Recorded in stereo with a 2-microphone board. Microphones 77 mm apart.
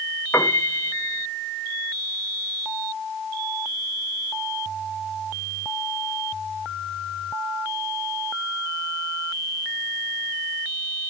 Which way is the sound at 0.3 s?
35° left (ahead or behind).